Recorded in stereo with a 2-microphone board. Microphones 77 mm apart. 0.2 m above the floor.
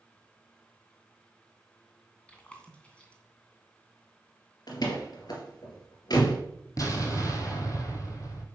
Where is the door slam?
60° left (ahead or behind), 2.5 m.